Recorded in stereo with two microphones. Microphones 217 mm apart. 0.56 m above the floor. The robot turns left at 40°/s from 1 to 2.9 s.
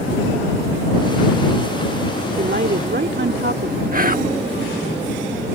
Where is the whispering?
40° right (ahead or behind).